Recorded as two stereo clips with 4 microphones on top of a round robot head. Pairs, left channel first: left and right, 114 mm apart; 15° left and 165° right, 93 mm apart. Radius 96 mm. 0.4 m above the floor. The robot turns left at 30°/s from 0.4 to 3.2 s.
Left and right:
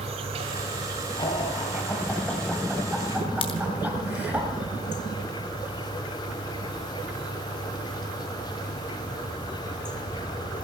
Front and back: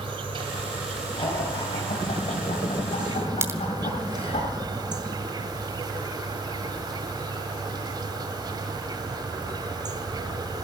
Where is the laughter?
45° left, 2.5 m; by 4.4 s 15° right, 2.5 m.